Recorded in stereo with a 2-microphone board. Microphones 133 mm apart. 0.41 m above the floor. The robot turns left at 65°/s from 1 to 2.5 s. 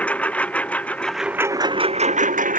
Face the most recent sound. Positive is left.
turn(degrees=-85)